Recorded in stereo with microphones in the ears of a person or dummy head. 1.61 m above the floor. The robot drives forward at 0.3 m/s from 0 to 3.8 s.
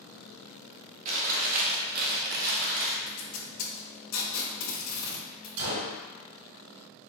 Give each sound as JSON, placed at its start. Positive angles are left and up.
{"t": 1.1, "sound": "chewing", "side_deg": -40, "distance_m": 0.9}
{"t": 3.1, "sound": "tape being pulled", "side_deg": 85, "distance_m": 1.3}
{"t": 5.6, "sound": "a gunshot", "side_deg": -60, "distance_m": 1.2}